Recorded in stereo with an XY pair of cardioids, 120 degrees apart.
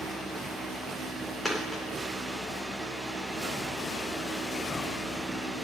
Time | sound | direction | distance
0.0 | a fan | 20° right | 3 m
1.4 | a dropped coin | straight ahead | 3 m